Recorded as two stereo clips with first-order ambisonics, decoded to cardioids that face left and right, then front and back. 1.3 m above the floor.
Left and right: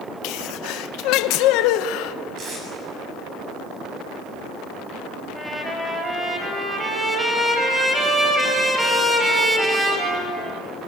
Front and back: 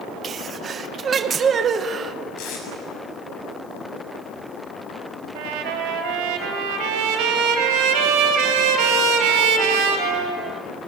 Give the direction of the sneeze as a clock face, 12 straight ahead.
8 o'clock.